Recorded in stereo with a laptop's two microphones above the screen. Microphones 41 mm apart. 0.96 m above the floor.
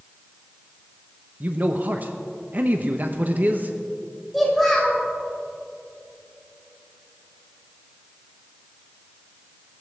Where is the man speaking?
50° right (ahead or behind), 0.8 m.